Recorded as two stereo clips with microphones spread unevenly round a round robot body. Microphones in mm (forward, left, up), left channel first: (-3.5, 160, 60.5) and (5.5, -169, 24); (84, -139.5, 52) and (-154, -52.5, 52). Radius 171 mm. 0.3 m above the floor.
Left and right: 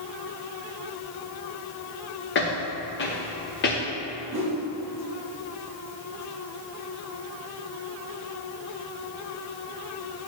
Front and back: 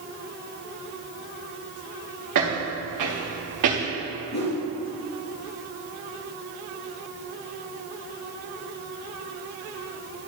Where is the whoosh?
35° right, 3.5 m.